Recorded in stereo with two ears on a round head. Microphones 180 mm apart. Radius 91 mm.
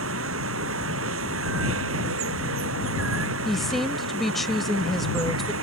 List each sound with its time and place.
0.0 s running water: 70° right (ahead or behind)
3.5 s a woman speaking: centre (ahead or behind)